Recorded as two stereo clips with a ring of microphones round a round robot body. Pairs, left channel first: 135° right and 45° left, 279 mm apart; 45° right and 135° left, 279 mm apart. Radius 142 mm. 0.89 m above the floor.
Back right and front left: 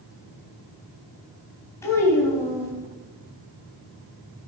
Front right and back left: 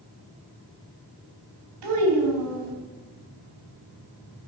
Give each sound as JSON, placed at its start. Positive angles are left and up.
{"t": 1.8, "sound": "a child speaking", "azimuth_deg": 145, "distance_m": 4.0}